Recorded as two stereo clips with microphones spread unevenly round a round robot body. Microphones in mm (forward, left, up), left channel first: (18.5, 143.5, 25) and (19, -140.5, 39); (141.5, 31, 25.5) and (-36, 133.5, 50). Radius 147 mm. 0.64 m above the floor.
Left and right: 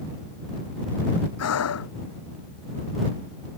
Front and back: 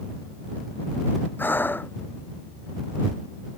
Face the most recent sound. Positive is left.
turn(degrees=50)